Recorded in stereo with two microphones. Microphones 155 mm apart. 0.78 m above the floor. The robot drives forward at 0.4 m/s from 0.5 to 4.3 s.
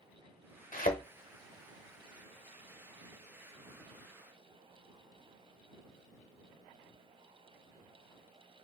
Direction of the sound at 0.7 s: 60° left (ahead or behind).